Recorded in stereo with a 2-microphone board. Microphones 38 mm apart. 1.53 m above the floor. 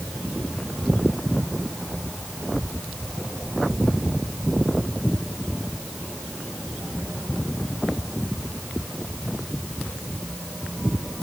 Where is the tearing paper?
No tearing paper in this recording.